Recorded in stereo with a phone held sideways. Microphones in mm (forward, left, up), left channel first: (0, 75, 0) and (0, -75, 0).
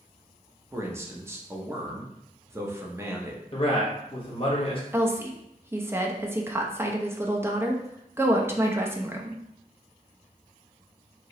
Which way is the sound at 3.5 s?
35° left (ahead or behind).